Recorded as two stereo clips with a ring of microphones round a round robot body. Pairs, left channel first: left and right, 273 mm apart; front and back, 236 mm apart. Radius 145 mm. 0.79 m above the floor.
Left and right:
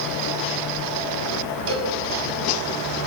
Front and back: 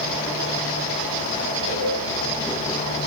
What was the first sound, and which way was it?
A cowbell, 50° right.